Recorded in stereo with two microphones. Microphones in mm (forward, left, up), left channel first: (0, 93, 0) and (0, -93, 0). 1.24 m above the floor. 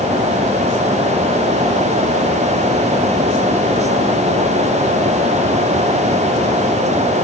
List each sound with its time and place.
Only background noise.